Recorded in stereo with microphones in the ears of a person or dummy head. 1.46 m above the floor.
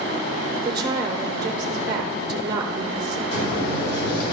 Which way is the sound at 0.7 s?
25° right (ahead or behind).